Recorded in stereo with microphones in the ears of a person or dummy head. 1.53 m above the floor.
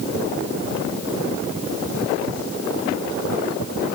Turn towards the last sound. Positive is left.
No sound to turn to.